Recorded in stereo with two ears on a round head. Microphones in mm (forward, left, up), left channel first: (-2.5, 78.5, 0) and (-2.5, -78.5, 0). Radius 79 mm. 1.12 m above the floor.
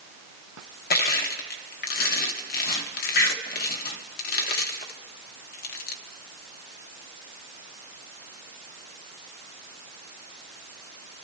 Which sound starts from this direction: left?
Crushing, at 0.9 s.